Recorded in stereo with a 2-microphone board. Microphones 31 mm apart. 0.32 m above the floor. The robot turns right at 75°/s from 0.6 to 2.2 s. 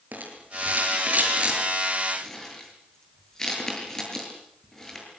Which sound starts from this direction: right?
A rattle, at 0.1 s.